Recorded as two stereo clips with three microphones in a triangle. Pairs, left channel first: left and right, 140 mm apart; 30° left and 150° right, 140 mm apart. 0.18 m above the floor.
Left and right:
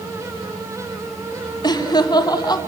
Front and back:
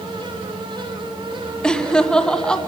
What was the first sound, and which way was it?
Laughter, 110° left.